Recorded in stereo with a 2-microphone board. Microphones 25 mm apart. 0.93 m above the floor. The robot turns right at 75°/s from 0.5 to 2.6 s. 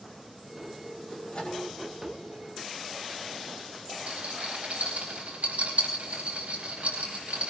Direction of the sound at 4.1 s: 80° right.